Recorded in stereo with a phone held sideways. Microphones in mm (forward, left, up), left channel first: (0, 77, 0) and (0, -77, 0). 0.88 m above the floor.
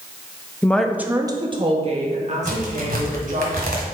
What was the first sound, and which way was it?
A woman speaking, 15° left (ahead or behind).